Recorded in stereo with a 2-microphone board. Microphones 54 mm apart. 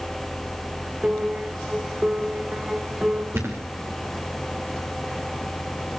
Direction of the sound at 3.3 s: 50° right (ahead or behind).